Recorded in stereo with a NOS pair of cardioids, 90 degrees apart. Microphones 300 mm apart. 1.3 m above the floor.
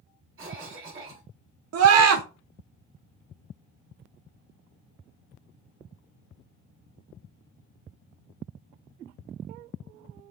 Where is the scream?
55° right, 0.7 m.